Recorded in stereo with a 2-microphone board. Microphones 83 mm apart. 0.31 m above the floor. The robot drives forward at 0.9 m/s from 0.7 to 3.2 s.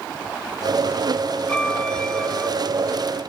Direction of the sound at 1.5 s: 15° left (ahead or behind).